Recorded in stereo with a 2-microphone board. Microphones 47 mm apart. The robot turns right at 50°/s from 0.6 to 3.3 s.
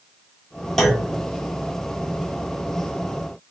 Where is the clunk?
5° left (ahead or behind), 0.9 m; by 1.2 s 10° right (ahead or behind), 0.9 m.